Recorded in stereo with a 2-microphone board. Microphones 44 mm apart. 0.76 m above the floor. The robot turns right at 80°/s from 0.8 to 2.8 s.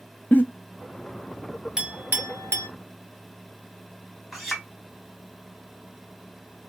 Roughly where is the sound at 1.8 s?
Centre.